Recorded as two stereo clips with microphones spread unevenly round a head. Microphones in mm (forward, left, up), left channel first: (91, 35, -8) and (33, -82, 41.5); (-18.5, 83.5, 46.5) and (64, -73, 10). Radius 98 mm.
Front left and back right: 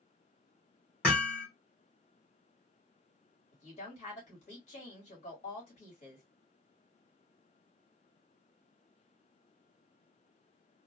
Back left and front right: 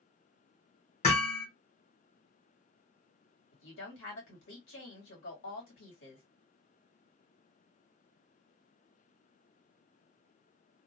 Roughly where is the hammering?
Behind.